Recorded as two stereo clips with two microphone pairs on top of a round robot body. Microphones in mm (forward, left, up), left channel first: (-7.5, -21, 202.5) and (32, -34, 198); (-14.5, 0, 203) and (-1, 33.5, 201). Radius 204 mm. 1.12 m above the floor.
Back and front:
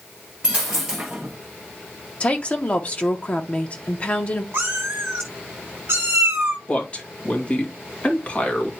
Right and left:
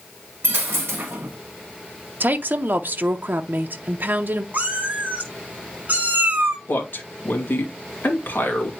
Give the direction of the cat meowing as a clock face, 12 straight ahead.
11 o'clock.